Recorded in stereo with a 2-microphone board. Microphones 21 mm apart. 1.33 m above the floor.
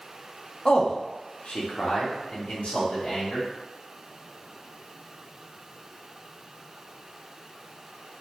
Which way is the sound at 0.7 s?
40° left (ahead or behind).